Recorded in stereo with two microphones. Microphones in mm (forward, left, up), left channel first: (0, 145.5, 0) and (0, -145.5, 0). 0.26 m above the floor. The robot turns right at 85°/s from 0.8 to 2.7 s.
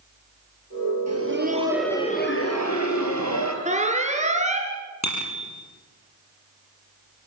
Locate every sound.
1.1 s laughter: 65° right, 5 m; by 3.5 s 75° left, 5 m
3.6 s an alarm: 25° right (ahead or behind), 3 m
5.0 s a bicycle bell: 70° left (ahead or behind), 5.5 m